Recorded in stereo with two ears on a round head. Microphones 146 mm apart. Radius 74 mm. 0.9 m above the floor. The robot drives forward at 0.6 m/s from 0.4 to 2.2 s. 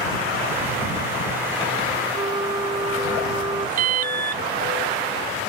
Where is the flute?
25° right (ahead or behind).